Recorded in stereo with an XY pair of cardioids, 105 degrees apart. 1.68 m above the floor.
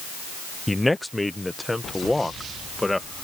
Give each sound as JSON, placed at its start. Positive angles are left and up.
{"t": 0.7, "sound": "a man speaking", "azimuth_deg": 10}